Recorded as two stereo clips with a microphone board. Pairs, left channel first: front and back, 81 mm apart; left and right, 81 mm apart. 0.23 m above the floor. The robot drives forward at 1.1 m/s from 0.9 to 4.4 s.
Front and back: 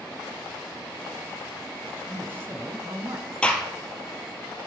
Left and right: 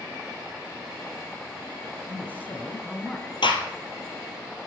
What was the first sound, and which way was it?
A man speaking, 120° left.